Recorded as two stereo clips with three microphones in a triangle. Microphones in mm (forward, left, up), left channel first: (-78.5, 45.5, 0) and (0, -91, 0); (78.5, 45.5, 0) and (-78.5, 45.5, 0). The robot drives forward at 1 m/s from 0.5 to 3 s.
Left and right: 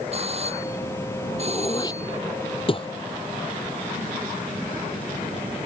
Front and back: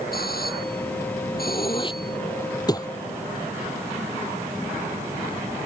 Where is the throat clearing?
55° left; by 2.9 s 65° left.